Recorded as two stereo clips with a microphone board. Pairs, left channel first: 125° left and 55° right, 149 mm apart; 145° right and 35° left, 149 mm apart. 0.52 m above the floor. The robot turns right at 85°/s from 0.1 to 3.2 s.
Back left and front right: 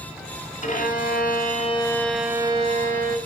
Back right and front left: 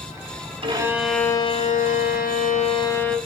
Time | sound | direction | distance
0.6 | a violin | 85° left | 2 m